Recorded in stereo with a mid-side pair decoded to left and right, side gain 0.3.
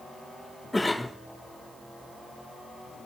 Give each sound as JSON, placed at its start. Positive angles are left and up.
{"t": 0.7, "sound": "a cough", "azimuth_deg": 20, "distance_m": 1.6}